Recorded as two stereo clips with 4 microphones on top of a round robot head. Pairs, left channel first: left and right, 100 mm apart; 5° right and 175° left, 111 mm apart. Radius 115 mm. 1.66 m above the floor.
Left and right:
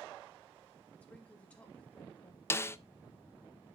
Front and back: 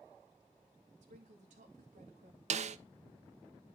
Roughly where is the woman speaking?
Behind.